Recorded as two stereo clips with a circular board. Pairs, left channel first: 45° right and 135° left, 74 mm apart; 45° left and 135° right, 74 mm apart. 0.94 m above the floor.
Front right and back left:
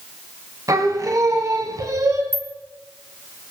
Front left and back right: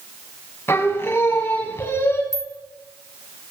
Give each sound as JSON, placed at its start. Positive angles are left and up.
{"t": 0.7, "sound": "singing", "azimuth_deg": 100, "distance_m": 1.9}
{"t": 2.3, "sound": "a rattle", "azimuth_deg": -165, "distance_m": 1.7}